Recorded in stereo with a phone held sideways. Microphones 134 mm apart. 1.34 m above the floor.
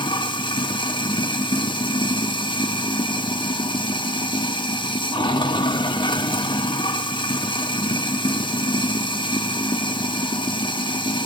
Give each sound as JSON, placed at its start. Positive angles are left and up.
{"t": 0.0, "sound": "running water", "side_deg": 35, "distance_m": 1.6}